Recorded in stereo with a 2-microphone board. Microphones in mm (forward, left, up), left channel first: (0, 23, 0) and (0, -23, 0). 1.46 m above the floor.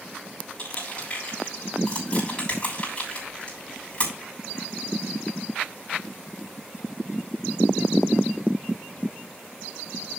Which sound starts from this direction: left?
Crushing, at 0.6 s.